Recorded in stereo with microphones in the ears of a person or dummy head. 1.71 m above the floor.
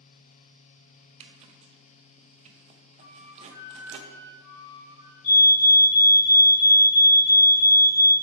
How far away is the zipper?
About 0.7 m.